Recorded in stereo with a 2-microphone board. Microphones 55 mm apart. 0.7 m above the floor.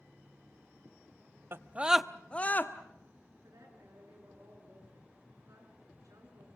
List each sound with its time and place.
1.5 s a scream: 45° right (ahead or behind), 0.9 m; by 2.7 s 35° left (ahead or behind), 1.4 m
3.4 s a woman speaking: 80° right, 9.5 m